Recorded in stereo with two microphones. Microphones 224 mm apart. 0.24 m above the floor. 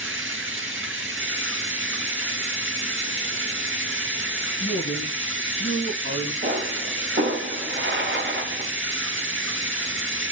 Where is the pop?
55° right (ahead or behind), 1.7 m.